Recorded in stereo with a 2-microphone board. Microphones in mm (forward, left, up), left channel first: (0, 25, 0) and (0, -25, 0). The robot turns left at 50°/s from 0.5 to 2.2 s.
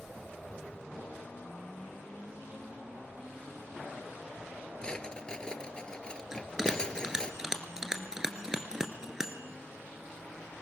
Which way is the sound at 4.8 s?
20° left (ahead or behind).